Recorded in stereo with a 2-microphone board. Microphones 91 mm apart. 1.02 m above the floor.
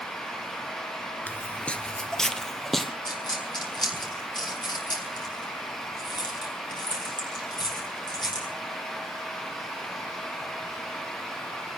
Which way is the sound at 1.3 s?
20° left (ahead or behind).